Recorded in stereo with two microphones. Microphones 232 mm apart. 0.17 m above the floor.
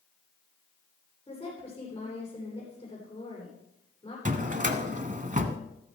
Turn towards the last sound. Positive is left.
turn(degrees=-35)  # may be behind; listen again after turning